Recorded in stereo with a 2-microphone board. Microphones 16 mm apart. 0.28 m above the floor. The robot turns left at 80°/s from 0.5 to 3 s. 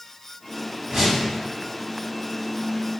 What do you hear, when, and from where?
0.9 s a whoosh: 35° right (ahead or behind), 1.5 m; by 1.2 s 15° right (ahead or behind), 1.5 m